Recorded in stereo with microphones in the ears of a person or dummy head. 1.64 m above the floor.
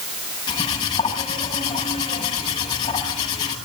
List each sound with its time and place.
0.5 s cutlery clinking: 20° left (ahead or behind), 8 m